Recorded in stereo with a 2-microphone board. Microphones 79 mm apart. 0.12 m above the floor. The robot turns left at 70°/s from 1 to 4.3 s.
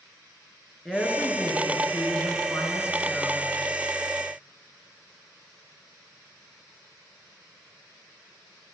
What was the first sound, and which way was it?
A woman speaking, straight behind.